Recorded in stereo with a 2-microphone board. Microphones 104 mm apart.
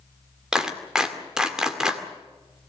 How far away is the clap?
About 2 m.